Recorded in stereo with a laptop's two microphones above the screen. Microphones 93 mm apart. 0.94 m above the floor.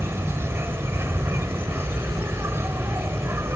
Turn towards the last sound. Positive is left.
turn(degrees=-30)  # may be behind; listen again after turning